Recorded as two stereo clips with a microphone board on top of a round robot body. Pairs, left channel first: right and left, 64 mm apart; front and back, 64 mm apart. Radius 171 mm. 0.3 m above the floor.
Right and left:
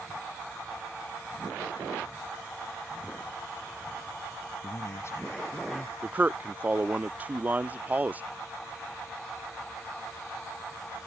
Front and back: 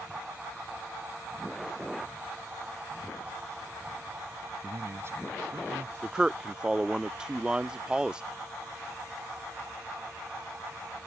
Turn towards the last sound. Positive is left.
turn(degrees=120)